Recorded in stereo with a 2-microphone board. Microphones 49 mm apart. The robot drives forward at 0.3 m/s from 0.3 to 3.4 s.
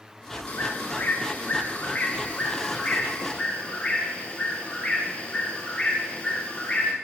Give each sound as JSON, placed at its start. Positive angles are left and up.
{"t": 0.5, "sound": "a bird", "side_deg": 40, "distance_m": 0.9}